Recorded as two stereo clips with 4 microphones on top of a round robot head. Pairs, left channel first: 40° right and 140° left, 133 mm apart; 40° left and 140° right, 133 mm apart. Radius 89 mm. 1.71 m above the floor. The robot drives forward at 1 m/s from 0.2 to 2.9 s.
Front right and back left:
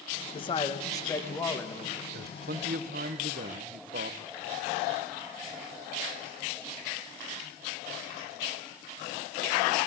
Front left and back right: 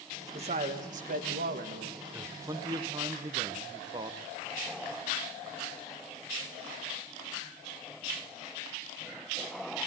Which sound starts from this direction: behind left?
A man speaking, at 2.1 s.